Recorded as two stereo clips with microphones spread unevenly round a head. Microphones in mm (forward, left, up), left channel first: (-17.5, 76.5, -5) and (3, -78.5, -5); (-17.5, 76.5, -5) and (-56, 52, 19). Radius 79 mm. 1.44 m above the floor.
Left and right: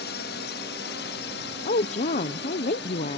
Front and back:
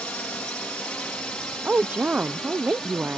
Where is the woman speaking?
145° left.